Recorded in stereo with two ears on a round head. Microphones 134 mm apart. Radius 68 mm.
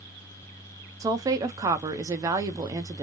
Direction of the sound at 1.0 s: 20° right (ahead or behind).